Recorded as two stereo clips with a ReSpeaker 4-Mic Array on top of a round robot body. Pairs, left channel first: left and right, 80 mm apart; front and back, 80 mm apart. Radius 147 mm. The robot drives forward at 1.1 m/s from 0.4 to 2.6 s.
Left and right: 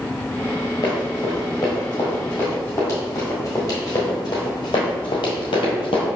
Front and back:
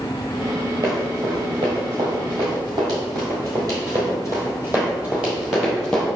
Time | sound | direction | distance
0.8 | running footsteps | 130° left | 1.0 m